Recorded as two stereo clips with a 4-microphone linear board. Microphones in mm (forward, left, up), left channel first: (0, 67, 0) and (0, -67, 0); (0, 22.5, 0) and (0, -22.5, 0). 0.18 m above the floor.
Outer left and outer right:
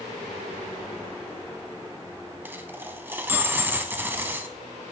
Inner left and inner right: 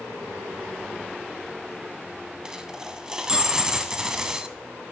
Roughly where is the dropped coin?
Centre.